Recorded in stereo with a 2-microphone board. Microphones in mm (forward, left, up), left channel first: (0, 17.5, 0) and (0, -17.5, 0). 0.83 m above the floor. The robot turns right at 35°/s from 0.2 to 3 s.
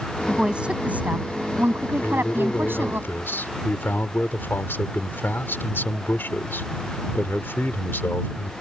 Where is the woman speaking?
160° right; by 3.0 s 65° right.